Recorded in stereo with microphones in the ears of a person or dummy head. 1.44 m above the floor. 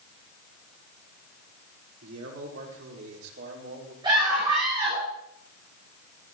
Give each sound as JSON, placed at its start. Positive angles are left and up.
{"t": 2.0, "sound": "a man speaking", "side_deg": -85, "distance_m": 4.5}
{"t": 4.0, "sound": "a scream", "side_deg": -20, "distance_m": 5.5}